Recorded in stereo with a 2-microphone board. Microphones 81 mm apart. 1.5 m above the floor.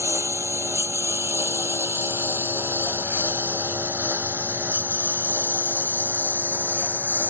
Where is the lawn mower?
30° right (ahead or behind); by 7.3 s 20° right (ahead or behind).